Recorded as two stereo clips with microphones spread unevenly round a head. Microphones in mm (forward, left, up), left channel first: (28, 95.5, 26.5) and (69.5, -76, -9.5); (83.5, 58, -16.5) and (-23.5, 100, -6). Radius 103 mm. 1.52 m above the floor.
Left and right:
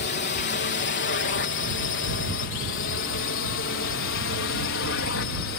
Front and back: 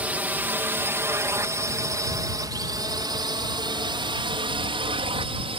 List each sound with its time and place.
0.0 s a drone: 85° left; by 5.6 s 125° left